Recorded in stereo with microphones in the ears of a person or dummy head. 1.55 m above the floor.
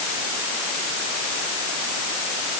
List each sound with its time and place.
Only background noise.